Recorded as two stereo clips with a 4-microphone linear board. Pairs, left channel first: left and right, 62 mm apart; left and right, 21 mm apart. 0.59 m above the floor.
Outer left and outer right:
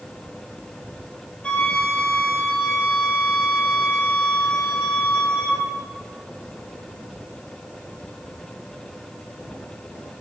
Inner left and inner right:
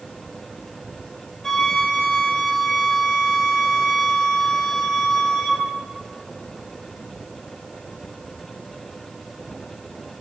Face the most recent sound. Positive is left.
turn(degrees=20)  # may be behind; listen again after turning